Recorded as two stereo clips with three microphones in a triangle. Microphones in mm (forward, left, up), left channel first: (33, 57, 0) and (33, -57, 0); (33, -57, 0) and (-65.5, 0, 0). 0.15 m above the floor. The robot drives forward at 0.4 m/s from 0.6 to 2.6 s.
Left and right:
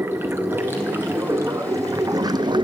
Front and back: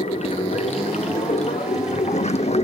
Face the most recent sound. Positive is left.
turn(degrees=-45)